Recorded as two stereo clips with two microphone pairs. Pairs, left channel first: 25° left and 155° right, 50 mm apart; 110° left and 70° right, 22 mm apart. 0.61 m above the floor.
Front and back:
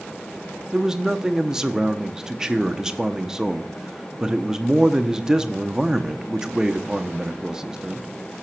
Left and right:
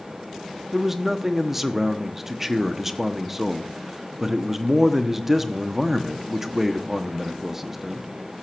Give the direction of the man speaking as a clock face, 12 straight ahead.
4 o'clock.